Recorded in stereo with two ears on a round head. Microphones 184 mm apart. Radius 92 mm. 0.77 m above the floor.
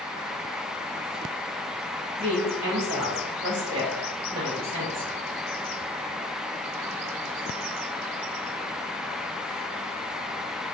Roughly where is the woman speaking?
Right.